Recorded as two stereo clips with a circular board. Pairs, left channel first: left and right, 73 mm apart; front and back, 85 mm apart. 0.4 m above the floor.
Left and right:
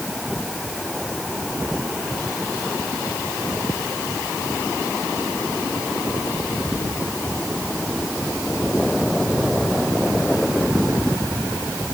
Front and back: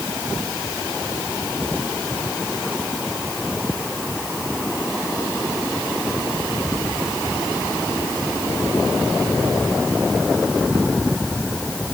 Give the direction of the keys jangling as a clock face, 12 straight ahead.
No keys jangling in this recording.